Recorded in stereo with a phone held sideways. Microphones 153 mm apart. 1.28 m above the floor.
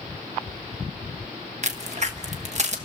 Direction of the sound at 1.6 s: 50° right (ahead or behind).